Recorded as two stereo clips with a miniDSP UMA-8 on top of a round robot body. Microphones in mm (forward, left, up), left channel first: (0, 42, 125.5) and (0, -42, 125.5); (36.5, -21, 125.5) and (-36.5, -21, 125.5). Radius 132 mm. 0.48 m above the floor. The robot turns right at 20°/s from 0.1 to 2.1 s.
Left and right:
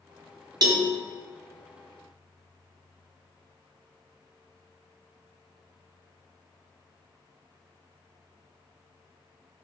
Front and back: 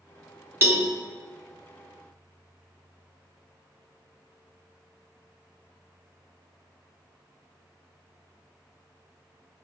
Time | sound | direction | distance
0.6 | a cowbell | 125° right | 1.0 m